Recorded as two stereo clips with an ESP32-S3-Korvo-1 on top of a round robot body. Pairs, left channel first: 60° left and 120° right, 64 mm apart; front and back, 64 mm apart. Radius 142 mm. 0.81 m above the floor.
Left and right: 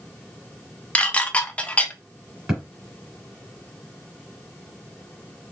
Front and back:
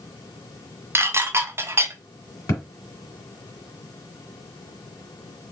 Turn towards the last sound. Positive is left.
turn(degrees=-30)